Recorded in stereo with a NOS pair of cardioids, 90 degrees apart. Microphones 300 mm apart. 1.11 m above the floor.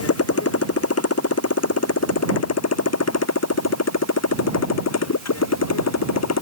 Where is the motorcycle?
50° left; by 6.4 s 60° left.